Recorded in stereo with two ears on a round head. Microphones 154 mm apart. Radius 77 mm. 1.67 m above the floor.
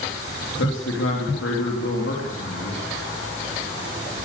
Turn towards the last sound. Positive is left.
turn(degrees=85)